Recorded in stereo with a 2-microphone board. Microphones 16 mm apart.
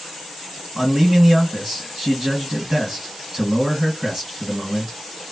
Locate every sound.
0.8 s a man speaking: 40° right (ahead or behind), 1.9 m